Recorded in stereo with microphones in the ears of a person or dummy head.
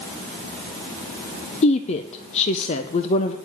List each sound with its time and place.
1.6 s a woman speaking: 40° left (ahead or behind), 0.6 m